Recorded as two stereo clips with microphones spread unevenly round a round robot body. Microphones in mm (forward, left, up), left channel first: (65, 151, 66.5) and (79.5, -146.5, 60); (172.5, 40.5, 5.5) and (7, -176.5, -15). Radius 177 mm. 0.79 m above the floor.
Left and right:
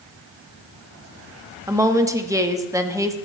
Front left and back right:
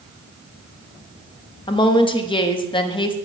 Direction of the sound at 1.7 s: 15° right.